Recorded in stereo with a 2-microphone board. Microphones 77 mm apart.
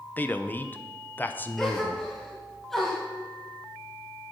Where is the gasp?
5° left (ahead or behind), 2 m.